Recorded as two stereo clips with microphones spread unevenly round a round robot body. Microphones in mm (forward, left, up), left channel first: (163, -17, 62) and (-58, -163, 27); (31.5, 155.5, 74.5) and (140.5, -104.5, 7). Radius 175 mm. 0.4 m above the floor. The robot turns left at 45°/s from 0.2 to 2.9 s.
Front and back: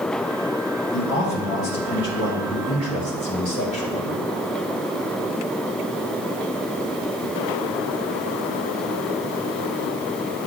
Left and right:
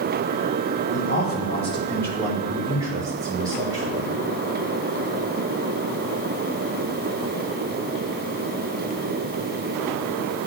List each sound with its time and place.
0.9 s a man speaking: 65° left, 1.3 m; by 4.2 s 25° right, 1.3 m